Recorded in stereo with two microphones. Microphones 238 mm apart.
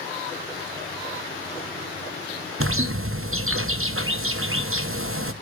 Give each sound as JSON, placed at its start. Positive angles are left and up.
{"t": 2.6, "sound": "a bird", "side_deg": -70, "distance_m": 0.8}